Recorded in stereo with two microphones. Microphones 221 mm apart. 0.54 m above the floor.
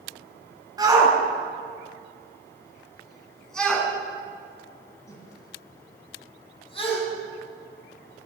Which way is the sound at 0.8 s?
15° right (ahead or behind).